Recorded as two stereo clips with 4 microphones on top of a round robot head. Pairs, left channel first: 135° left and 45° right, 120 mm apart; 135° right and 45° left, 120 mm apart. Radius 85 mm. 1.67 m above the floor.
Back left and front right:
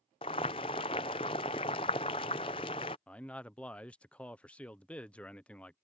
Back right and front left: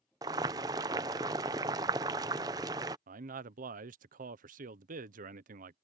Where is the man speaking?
55° left.